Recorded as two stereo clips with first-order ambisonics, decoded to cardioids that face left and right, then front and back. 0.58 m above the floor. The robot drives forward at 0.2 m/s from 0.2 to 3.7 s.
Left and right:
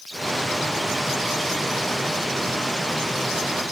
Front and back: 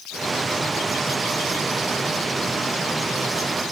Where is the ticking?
I don't hear ticking.